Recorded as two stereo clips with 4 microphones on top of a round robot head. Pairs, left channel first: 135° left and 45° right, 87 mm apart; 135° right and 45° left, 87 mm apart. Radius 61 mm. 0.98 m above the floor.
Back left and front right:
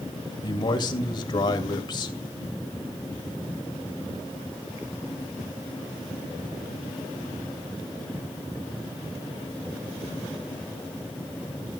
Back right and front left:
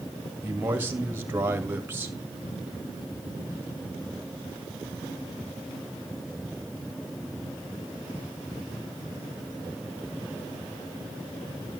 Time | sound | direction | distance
0.4 | a man speaking | 110° left | 2 m